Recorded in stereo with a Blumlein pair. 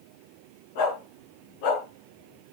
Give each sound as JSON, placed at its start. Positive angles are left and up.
{"t": 0.8, "sound": "a dog barking", "azimuth_deg": 50, "distance_m": 7.0}